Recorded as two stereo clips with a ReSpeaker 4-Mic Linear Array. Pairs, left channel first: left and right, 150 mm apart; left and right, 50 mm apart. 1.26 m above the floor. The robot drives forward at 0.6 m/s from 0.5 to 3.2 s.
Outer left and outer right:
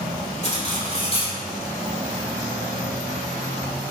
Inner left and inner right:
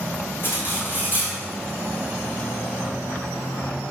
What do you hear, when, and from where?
0.4 s cutlery clinking: 50° left (ahead or behind), 2.5 m; by 1.4 s 40° left (ahead or behind), 3 m